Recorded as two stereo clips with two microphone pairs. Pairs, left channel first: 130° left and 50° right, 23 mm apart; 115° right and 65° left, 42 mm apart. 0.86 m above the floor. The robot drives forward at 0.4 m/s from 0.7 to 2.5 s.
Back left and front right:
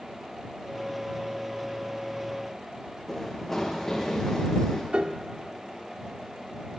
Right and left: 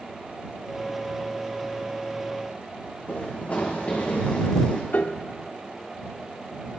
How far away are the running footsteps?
About 4.5 m.